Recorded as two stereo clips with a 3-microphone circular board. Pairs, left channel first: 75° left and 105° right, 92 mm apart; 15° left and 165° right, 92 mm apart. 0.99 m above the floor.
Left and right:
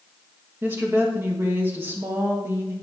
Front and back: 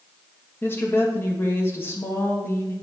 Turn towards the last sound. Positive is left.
turn(degrees=-40)